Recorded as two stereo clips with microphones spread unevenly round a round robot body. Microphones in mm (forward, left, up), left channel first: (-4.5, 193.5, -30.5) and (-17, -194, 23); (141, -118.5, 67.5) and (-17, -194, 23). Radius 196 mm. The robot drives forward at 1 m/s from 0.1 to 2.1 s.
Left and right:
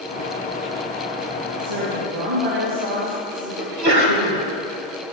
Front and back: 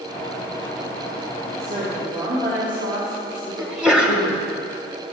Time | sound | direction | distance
1.6 | a woman speaking | 115° right | 3 m
3.6 | a sneeze | 85° right | 1.8 m